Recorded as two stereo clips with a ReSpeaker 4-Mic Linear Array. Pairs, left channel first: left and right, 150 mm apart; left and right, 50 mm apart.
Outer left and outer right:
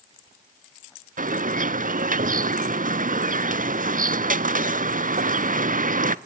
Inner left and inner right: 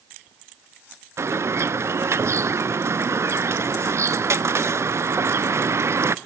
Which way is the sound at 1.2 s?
65° right (ahead or behind).